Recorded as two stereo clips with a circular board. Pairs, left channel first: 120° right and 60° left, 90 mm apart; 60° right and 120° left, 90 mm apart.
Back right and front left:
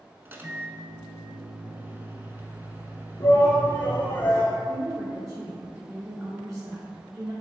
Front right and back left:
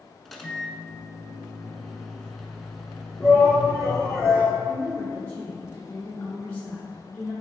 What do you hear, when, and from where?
0.2 s a microwave: 25° left, 0.9 m
3.2 s a shout: 170° right, 1.5 m
4.7 s a woman speaking: 10° left, 2.5 m